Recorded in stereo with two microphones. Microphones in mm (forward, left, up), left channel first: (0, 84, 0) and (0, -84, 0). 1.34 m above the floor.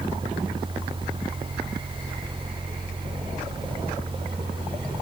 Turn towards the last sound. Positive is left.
No sound to turn to.